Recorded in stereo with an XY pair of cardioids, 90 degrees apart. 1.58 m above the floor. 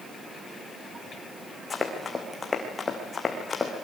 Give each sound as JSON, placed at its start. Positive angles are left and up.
{"t": 1.7, "sound": "running footsteps", "azimuth_deg": 35, "distance_m": 5.5}